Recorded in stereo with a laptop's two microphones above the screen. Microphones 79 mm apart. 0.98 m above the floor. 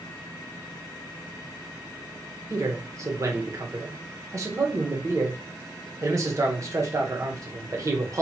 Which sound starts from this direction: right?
A man speaking, at 2.5 s.